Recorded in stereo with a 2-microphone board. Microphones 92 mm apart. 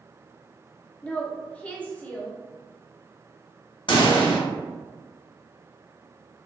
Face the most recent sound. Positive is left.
turn(degrees=60)  # may be behind; listen again after turning